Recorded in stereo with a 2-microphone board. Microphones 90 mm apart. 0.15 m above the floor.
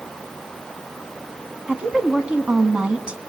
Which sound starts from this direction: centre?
A woman speaking, at 1.7 s.